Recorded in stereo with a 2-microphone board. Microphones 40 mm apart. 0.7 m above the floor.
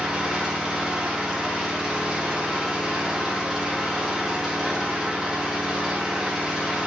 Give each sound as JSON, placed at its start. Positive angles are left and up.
{"t": 0.0, "sound": "an engine running", "side_deg": -15, "distance_m": 1.1}